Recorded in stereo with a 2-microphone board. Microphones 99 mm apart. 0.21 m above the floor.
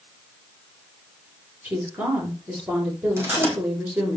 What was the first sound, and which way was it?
A woman speaking, 15° right (ahead or behind).